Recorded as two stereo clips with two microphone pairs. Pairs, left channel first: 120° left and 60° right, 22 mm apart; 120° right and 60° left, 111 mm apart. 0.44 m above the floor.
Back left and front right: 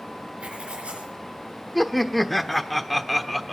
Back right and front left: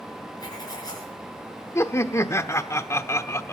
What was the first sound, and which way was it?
Writing, 70° right.